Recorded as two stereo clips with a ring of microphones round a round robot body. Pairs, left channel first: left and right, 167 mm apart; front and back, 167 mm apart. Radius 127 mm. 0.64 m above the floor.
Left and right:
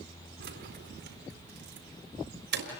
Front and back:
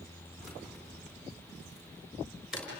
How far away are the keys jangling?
About 4 m.